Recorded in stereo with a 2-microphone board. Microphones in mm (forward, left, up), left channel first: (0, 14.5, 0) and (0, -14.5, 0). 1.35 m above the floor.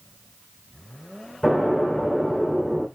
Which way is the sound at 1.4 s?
Centre (ahead or behind).